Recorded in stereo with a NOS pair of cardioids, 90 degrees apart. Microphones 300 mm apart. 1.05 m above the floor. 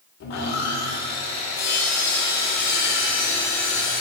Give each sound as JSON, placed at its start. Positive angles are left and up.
{"t": 0.2, "sound": "sawing", "azimuth_deg": 60, "distance_m": 2.0}